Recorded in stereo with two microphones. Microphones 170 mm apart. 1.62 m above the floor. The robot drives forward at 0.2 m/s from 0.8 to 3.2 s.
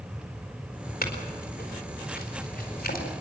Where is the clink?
65° left (ahead or behind), 4.5 m; by 3.1 s 60° left (ahead or behind), 4.5 m.